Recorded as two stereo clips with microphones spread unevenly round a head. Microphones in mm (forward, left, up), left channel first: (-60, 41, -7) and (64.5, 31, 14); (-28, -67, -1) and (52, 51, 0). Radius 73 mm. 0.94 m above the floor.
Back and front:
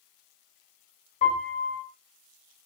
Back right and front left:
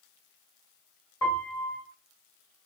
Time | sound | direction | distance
1.2 | a piano | 160° left | 1.2 m